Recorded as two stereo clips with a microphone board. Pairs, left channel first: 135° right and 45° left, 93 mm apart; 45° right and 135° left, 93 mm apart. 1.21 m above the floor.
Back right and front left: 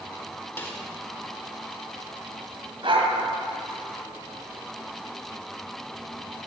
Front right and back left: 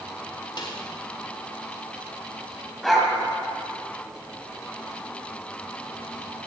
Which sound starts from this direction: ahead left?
A dog barking, at 2.8 s.